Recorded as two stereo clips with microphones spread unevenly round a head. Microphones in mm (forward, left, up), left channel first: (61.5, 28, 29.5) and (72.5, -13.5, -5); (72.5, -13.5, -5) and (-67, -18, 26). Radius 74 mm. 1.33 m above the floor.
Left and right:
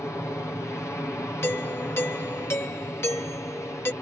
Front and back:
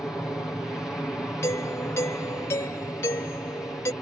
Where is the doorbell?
70° left.